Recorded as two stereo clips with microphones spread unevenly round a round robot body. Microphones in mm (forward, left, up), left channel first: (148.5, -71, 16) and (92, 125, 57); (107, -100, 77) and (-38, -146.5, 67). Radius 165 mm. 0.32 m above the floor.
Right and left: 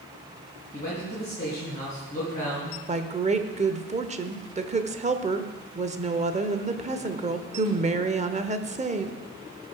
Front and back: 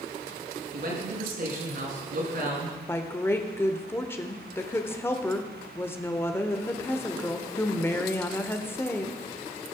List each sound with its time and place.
0.7 s a man speaking: 150° right, 5.5 m
2.9 s a woman speaking: 80° left, 1.0 m